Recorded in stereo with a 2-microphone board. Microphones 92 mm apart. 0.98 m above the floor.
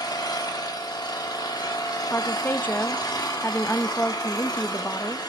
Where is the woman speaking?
20° left (ahead or behind), 0.7 m.